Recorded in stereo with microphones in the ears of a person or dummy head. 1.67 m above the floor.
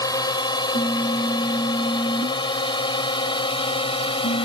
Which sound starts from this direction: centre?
A drone, at 0.0 s.